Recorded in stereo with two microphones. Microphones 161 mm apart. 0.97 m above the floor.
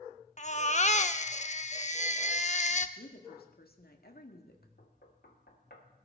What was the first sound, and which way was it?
A baby crying, 50° left (ahead or behind).